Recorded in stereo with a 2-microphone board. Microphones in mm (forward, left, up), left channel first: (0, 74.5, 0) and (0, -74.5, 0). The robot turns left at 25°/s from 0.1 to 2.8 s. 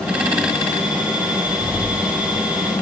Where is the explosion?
165° left, 0.7 m; by 2.7 s 135° left, 0.7 m.